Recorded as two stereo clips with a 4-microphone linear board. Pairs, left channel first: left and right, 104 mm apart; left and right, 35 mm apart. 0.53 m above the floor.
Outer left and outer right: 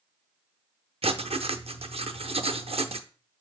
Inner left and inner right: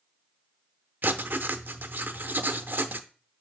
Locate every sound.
1.0 s writing: 70° right (ahead or behind), 0.5 m